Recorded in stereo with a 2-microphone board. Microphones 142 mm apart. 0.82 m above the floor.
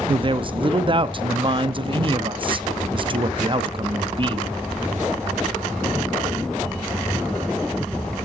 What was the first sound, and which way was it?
A man speaking, 35° right (ahead or behind).